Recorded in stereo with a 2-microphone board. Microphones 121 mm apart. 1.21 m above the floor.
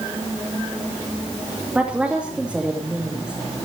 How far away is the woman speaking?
About 2.5 m.